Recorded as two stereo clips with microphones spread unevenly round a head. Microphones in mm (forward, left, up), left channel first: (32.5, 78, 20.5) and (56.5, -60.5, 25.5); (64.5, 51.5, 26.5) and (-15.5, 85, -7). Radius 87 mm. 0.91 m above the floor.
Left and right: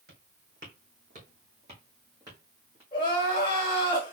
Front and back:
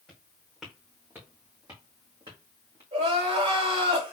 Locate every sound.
0.1 s footsteps: 95° right, 1.9 m; by 2.8 s 155° right, 1.7 m
2.9 s crying: 165° left, 1.8 m